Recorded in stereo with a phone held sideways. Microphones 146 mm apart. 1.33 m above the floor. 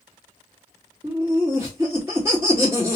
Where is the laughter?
15° right (ahead or behind), 2 m.